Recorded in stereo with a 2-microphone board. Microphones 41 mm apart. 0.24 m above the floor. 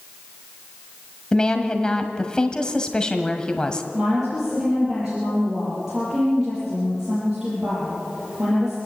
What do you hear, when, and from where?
1.3 s a woman speaking: 20° left (ahead or behind), 1.4 m
3.9 s a woman speaking: 10° right (ahead or behind), 8 m